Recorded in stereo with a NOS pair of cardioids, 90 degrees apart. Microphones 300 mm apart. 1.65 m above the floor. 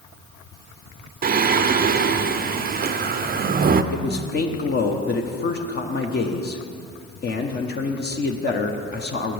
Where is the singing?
35° right, 0.5 m.